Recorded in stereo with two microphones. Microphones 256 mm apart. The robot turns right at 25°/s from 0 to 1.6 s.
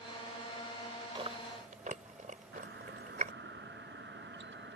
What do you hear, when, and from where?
1.1 s chewing: 20° right (ahead or behind); by 3.3 s 30° right (ahead or behind)
2.5 s a doorbell: 45° right (ahead or behind)